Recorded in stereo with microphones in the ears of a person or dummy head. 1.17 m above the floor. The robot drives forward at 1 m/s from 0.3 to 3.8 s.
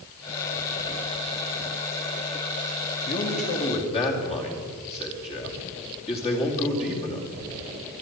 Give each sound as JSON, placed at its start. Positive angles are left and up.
{"t": 3.0, "sound": "a man speaking", "side_deg": 40, "distance_m": 2.0}